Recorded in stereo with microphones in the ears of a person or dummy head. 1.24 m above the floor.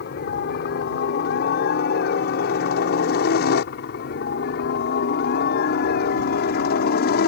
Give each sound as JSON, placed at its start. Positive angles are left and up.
{"t": 0.0, "sound": "a helicopter", "side_deg": 60}